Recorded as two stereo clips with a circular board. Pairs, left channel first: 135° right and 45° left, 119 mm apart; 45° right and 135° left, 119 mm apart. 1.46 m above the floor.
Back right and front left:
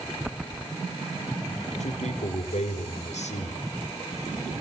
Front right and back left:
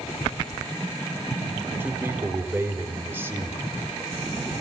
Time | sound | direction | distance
1.8 | a man speaking | 155° right | 6 m